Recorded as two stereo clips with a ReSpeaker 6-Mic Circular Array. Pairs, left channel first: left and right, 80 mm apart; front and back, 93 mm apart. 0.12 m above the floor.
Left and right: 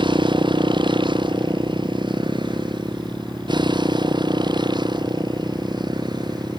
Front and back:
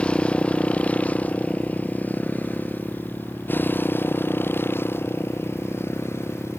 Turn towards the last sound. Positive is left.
turn(degrees=-65)